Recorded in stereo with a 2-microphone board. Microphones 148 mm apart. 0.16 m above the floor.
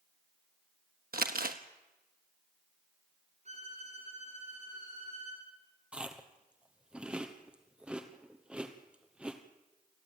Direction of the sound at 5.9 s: 5° right (ahead or behind).